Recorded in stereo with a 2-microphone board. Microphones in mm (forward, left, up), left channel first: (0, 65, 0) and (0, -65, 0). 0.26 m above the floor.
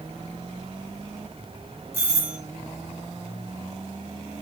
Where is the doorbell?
20° right (ahead or behind), 1.8 m.